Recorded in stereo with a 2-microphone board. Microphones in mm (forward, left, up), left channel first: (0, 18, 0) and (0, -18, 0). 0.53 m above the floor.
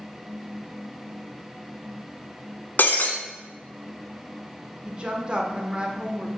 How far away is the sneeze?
I don't hear a sneeze.